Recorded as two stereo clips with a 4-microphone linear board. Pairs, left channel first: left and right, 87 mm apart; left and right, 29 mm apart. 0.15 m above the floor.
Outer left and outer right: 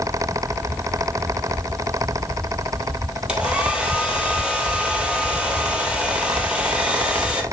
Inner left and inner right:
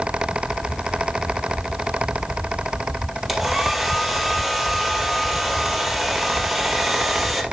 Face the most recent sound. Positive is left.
turn(degrees=-10)  # may be behind; listen again after turning